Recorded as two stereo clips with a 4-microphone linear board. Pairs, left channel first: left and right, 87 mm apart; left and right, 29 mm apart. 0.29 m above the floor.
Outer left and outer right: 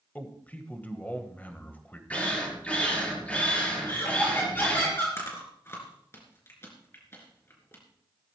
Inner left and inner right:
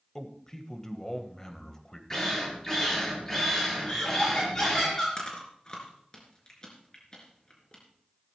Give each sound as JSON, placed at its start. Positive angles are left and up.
{"t": 0.1, "sound": "a man speaking", "side_deg": 20, "distance_m": 1.4}
{"t": 2.1, "sound": "a drill", "side_deg": 15, "distance_m": 4.5}
{"t": 3.9, "sound": "laughter", "side_deg": 25, "distance_m": 3.5}
{"t": 5.2, "sound": "chewing", "side_deg": 30, "distance_m": 3.0}